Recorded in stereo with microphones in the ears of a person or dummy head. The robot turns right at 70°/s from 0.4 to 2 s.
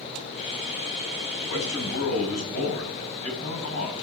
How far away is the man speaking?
About 8 m.